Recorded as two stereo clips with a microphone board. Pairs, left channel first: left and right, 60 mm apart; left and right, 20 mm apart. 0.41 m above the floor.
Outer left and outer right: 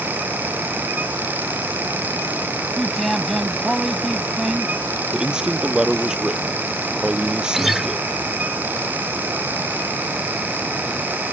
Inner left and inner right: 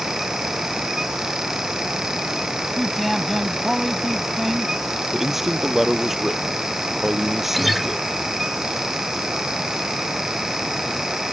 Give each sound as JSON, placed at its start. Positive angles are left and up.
{"t": 2.8, "sound": "a man speaking", "side_deg": 0}
{"t": 5.1, "sound": "a man speaking", "side_deg": -15}
{"t": 7.5, "sound": "a guitar", "side_deg": -5}